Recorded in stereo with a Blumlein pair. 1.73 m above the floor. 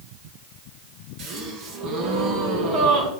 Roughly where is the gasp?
Ahead right.